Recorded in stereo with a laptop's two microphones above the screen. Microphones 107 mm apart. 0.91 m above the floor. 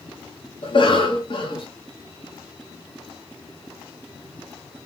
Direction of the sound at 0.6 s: 50° left (ahead or behind).